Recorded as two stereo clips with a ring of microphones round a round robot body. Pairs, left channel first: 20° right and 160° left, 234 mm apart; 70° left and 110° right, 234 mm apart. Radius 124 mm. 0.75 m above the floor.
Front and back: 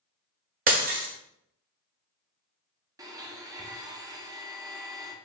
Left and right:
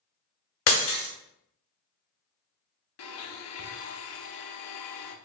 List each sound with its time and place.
0.7 s breaking glass: 100° left, 1.1 m
3.0 s a blender: 80° left, 0.8 m